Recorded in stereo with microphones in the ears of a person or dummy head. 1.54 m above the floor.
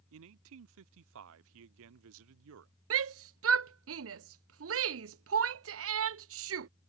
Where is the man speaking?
80° right.